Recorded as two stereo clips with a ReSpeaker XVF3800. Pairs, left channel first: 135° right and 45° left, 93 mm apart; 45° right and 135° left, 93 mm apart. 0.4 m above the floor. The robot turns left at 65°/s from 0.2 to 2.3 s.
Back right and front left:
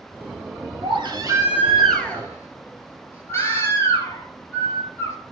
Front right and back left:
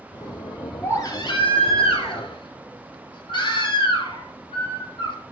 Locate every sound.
0.8 s a baby crying: 25° left, 2.5 m; by 5.2 s 70° right, 2.5 m